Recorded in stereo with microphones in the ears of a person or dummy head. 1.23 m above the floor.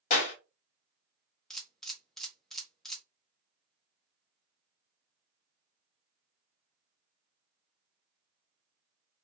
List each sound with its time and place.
0.1 s a clap: 50° left (ahead or behind), 0.8 m
1.5 s a camera shutter: 5° left (ahead or behind), 0.7 m